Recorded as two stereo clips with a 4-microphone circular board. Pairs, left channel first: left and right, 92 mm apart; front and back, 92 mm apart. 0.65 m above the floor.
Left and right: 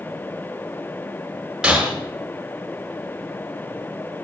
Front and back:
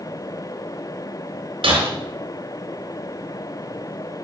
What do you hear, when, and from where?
1.6 s breaking glass: 170° right, 6 m